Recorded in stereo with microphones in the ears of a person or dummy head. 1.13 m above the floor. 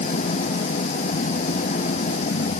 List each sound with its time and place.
0.0 s an engine running: 40° left (ahead or behind)